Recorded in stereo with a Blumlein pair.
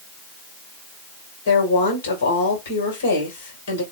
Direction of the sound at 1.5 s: 60° left.